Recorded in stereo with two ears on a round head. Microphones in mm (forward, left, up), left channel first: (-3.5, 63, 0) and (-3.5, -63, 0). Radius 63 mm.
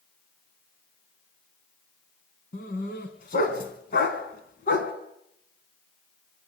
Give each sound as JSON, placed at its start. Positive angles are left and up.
{"t": 2.5, "sound": "a dog barking", "side_deg": 65, "distance_m": 4.0}